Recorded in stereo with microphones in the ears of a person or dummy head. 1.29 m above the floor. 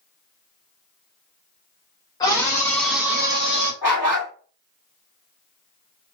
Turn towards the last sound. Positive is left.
turn(degrees=-10)  # may be behind; listen again after turning